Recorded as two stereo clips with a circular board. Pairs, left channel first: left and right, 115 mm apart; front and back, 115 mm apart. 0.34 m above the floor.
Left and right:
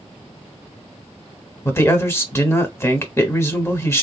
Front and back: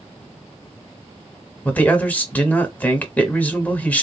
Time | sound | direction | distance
1.6 | a man speaking | 55° left | 0.9 m